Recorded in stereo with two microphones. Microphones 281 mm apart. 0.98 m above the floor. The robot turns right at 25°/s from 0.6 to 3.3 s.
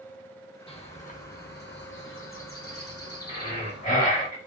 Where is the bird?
25° left, 0.7 m; by 4.3 s 90° left, 0.7 m.